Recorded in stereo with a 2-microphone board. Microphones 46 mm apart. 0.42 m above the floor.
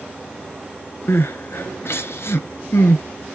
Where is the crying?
65° left (ahead or behind), 1.1 m.